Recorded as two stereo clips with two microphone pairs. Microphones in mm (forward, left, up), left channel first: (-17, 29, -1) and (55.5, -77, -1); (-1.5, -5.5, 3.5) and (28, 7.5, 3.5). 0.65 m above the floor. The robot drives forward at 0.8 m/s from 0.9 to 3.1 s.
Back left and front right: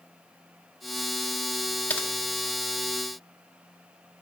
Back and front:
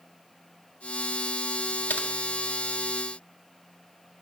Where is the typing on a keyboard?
155° right, 0.6 m; by 2.1 s 160° right, 0.7 m.